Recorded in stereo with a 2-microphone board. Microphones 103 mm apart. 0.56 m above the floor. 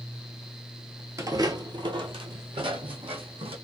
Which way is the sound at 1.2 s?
30° right (ahead or behind).